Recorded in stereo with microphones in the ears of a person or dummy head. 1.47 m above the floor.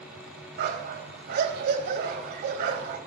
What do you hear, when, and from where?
0.6 s a dog barking: 65° right (ahead or behind), 3 m